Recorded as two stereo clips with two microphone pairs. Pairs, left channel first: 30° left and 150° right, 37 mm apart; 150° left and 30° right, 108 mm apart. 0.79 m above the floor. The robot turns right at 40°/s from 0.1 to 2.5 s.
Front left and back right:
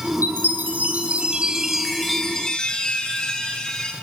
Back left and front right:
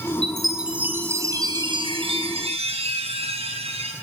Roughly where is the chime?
Behind right.